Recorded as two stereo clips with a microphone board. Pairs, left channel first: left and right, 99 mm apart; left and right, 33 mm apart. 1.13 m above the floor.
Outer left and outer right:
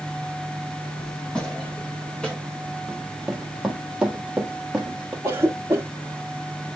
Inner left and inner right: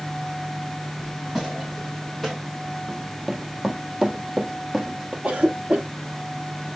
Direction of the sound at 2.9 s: 5° right (ahead or behind).